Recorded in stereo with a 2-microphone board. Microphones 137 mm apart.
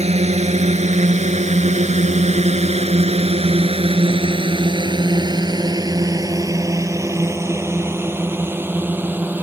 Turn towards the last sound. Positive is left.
turn(degrees=-15)  # may be behind; listen again after turning